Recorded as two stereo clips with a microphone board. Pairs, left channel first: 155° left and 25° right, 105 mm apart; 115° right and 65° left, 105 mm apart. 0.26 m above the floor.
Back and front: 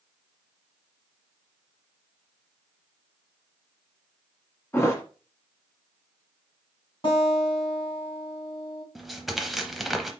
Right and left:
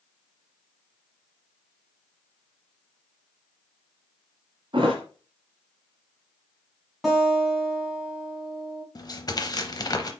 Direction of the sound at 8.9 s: 110° right.